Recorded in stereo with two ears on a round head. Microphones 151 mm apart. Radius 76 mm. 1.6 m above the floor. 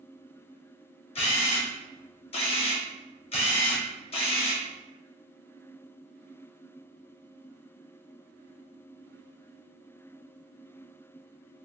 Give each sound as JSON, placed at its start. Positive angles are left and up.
{"t": 1.1, "sound": "a camera shutter", "side_deg": 35, "distance_m": 0.7}